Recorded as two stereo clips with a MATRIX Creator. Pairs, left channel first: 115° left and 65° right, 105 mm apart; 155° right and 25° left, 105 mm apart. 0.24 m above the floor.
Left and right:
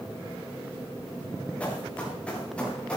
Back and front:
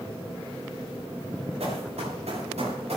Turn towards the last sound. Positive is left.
turn(degrees=30)